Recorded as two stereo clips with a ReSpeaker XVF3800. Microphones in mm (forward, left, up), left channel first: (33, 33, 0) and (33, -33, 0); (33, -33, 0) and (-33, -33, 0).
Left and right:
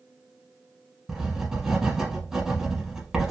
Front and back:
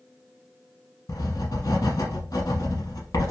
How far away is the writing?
About 1.1 m.